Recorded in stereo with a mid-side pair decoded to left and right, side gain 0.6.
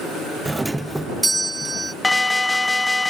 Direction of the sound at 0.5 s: 10° right.